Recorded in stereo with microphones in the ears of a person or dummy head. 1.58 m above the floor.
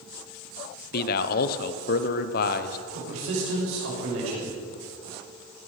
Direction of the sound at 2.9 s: 75° right (ahead or behind).